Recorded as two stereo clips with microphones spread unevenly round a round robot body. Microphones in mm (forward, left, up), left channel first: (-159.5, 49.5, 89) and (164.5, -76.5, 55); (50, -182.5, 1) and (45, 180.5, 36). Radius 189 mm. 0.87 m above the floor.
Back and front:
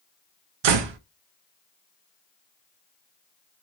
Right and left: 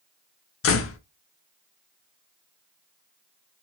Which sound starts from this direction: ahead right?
A door slam, at 0.6 s.